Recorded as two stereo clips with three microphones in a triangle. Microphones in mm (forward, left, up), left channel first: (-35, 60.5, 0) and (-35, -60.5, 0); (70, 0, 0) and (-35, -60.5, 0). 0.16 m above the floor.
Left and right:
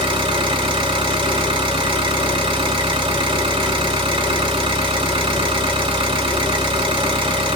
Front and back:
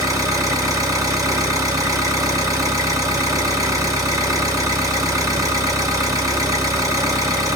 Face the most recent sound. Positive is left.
turn(degrees=-100)